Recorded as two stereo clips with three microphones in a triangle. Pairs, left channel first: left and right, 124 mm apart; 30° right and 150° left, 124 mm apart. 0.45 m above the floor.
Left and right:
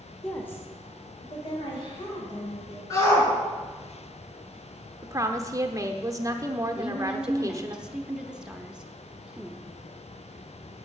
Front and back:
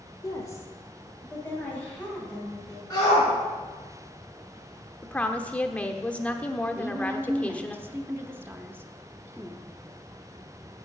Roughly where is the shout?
Ahead left.